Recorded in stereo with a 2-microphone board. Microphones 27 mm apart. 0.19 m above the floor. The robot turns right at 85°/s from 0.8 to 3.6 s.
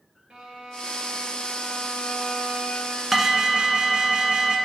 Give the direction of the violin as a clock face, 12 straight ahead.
2 o'clock.